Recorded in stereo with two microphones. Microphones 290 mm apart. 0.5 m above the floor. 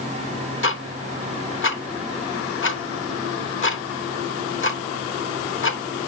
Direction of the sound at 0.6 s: 45° left (ahead or behind).